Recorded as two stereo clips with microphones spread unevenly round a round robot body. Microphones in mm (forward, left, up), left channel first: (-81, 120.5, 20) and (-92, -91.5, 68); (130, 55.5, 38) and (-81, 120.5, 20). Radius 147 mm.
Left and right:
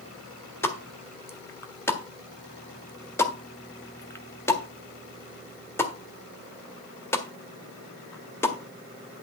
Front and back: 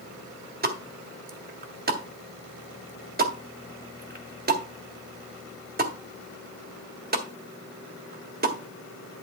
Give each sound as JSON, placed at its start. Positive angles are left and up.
{"t": 0.6, "sound": "a pop", "azimuth_deg": 150, "distance_m": 1.7}